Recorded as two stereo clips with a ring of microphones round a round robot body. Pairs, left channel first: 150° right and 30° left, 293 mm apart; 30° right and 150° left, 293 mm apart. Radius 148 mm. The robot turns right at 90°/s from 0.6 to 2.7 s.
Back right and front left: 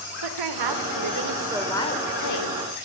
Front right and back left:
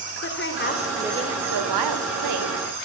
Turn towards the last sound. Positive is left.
turn(degrees=-145)